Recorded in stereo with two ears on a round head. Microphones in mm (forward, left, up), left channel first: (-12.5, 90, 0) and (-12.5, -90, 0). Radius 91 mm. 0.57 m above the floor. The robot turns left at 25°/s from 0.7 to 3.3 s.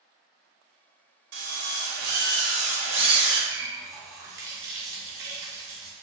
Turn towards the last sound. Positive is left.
turn(degrees=-15)  # may be behind; listen again after turning